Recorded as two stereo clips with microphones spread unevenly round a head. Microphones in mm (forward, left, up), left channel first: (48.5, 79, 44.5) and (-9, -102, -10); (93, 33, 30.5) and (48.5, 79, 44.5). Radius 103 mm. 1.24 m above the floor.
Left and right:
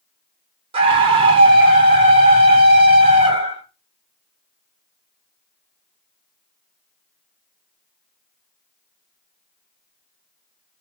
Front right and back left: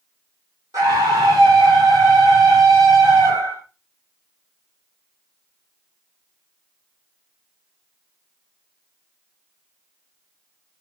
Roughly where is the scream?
Behind.